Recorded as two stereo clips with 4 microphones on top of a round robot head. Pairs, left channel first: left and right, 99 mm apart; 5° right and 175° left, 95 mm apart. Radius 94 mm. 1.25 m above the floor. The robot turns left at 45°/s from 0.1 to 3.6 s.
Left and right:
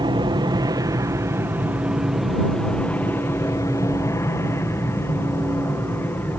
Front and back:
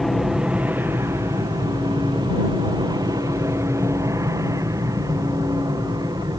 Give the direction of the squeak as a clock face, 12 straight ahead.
I don't hear a squeak.